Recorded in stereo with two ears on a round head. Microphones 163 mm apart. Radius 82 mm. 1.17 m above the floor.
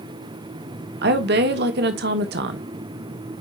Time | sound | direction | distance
1.0 | a woman speaking | 65° right (ahead or behind) | 1.5 m